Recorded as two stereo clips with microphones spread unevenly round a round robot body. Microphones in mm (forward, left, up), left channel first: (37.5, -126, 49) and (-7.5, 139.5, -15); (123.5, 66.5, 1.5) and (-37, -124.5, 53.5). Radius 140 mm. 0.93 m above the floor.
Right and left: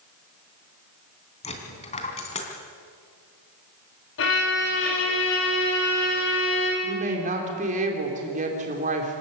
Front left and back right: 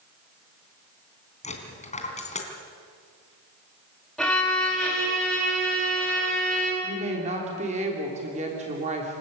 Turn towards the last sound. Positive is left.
turn(degrees=160)